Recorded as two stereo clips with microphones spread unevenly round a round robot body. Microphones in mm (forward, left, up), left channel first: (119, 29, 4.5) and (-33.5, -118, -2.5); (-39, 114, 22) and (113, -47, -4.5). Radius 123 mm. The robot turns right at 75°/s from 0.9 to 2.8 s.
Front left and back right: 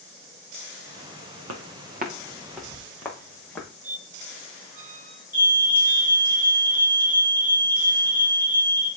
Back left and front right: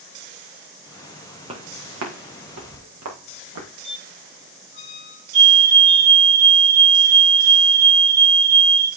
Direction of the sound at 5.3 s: 55° right.